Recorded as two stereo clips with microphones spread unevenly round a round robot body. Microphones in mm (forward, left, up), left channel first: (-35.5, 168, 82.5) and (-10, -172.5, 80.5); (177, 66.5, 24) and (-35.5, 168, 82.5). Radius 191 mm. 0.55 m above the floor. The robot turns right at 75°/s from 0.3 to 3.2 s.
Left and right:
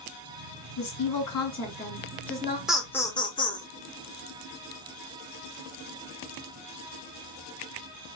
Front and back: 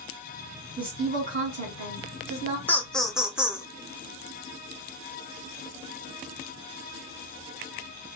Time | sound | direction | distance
0.8 | a woman speaking | 75° left | 2 m
2.7 | laughter | straight ahead | 0.8 m